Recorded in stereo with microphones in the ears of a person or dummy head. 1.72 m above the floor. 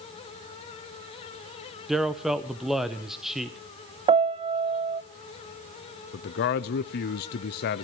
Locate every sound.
1.9 s a man speaking: centre (ahead or behind), 1.0 m
4.1 s a piano: 25° right (ahead or behind), 0.6 m
6.1 s a man speaking: 50° left (ahead or behind), 0.6 m